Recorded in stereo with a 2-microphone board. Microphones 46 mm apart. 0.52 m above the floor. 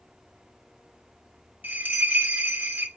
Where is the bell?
40° right (ahead or behind), 0.5 m.